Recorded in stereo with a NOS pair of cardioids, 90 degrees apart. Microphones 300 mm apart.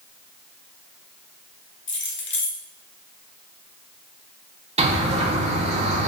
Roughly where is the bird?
Ahead.